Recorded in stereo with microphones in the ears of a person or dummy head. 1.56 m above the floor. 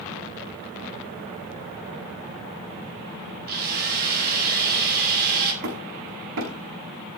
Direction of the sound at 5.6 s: 60° right (ahead or behind).